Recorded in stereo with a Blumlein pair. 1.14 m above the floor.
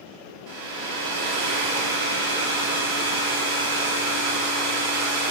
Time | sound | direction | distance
0.5 | a hair dryer | 45° right | 1.2 m